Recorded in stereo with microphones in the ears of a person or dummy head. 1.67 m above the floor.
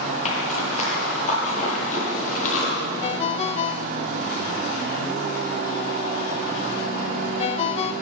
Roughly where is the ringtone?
Left.